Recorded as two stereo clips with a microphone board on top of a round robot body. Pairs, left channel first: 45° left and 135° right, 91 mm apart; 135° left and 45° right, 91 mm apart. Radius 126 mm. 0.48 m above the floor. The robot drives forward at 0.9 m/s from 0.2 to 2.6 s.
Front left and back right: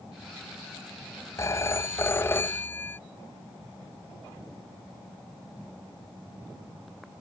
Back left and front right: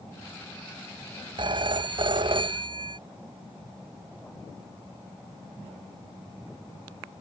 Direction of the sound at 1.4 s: 15° right.